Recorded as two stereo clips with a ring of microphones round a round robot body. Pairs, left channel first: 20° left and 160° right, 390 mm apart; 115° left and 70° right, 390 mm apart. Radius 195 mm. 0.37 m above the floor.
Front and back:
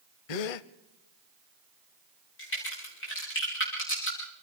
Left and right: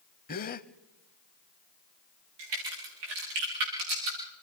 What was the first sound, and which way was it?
A gasp, 45° left.